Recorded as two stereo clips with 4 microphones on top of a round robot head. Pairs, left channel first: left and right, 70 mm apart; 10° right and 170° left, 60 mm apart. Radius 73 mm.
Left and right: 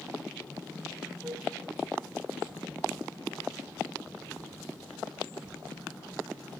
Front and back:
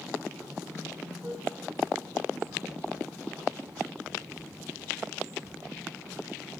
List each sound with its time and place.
1.2 s a flute: 150° right, 1.7 m